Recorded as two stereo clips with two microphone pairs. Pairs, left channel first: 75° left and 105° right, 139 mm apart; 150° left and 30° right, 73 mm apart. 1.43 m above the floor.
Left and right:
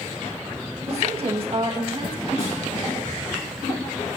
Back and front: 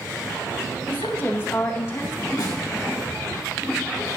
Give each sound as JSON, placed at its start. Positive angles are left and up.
{"t": 0.9, "sound": "a woman speaking", "azimuth_deg": -150, "distance_m": 1.5}
{"t": 2.4, "sound": "a snare drum", "azimuth_deg": 120, "distance_m": 3.0}